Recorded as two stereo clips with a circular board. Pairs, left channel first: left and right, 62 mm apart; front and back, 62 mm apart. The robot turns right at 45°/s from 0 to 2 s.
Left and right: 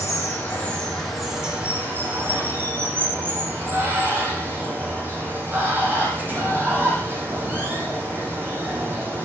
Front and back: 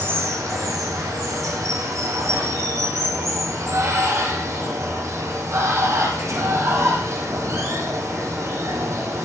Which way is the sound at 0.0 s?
130° left.